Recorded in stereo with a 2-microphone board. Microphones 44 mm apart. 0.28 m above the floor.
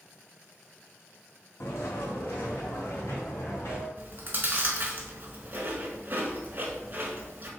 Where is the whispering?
I don't hear whispering.